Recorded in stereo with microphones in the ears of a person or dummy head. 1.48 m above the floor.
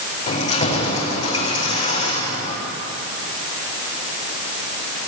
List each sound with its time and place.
0.3 s keys jangling: 30° left (ahead or behind), 4.5 m